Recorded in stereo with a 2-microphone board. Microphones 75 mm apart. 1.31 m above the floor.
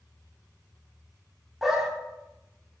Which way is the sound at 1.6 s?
5° right (ahead or behind).